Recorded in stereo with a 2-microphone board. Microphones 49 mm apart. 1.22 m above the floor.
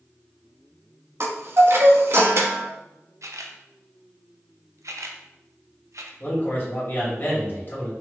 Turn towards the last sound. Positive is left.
turn(degrees=40)  # may be behind; listen again after turning